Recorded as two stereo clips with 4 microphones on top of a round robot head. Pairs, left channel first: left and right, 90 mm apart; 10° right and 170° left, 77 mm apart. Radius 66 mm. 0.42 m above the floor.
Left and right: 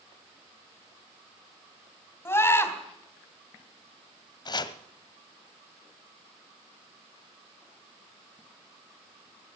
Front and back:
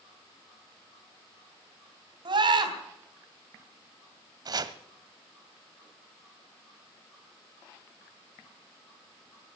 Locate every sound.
2.2 s a scream: 155° left, 3 m
4.5 s chopping: 135° left, 0.9 m